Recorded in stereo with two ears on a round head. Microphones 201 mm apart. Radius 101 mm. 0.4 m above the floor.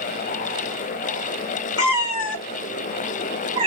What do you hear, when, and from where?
1.8 s a cat meowing: 65° left (ahead or behind), 1.3 m; by 3.7 s 30° right (ahead or behind), 0.8 m